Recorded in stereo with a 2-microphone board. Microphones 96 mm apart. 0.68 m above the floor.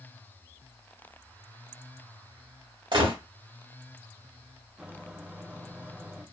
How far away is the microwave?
About 0.7 m.